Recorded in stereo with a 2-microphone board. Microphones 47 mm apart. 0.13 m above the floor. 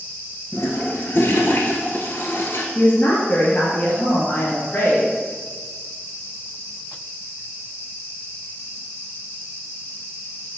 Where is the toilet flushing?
55° left (ahead or behind), 1.5 m.